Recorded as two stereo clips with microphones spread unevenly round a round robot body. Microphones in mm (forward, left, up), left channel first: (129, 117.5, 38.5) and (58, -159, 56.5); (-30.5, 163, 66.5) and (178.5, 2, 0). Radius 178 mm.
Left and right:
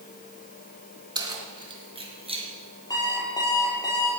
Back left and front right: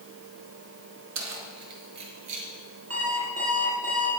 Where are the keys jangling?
30° right, 3.5 m; by 2.5 s 35° right, 5.5 m.